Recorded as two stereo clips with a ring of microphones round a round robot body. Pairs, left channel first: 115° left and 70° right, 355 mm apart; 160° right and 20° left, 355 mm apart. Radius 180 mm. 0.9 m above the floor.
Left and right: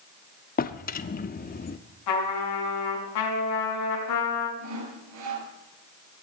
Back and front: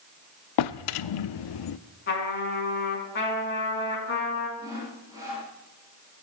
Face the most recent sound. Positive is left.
turn(degrees=-60)